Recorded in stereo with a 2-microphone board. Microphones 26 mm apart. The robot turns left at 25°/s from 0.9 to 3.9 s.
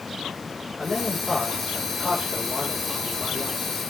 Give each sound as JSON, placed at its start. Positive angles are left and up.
{"t": 0.8, "sound": "a man speaking", "azimuth_deg": 160, "distance_m": 7.0}